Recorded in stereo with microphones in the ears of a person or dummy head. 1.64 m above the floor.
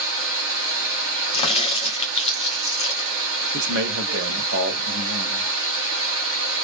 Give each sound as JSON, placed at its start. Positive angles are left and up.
{"t": 0.0, "sound": "running water", "side_deg": -70, "distance_m": 0.9}
{"t": 1.3, "sound": "a crack", "side_deg": 30, "distance_m": 0.7}
{"t": 3.5, "sound": "a man speaking", "side_deg": -65, "distance_m": 0.6}